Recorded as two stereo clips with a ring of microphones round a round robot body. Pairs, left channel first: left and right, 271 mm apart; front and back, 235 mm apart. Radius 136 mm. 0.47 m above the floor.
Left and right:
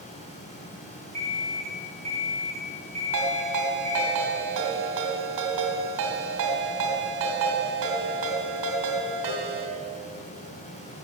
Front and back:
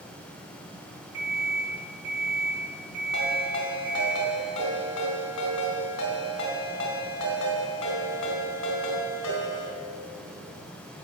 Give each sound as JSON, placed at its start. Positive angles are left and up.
{"t": 1.1, "sound": "an alarm clock", "azimuth_deg": 100, "distance_m": 4.5}
{"t": 3.1, "sound": "a ringtone", "azimuth_deg": -45, "distance_m": 2.5}